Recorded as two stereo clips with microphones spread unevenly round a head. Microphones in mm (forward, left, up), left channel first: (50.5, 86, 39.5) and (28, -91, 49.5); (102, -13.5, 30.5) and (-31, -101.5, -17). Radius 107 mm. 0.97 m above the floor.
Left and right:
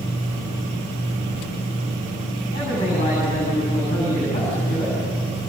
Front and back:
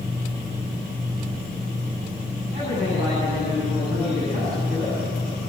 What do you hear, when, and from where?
2.5 s a man speaking: 150° left, 8.5 m